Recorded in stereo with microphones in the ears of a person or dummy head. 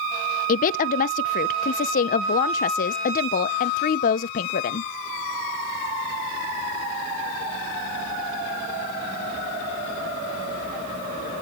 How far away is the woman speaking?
About 0.6 m.